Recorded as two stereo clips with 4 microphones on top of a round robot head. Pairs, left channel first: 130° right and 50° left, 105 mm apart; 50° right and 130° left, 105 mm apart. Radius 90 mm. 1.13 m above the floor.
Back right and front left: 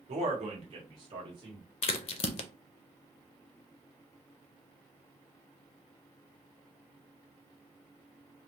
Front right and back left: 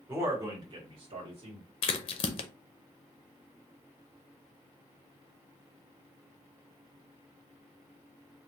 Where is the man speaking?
60° left, 1.0 m; by 1.6 s 95° left, 1.4 m.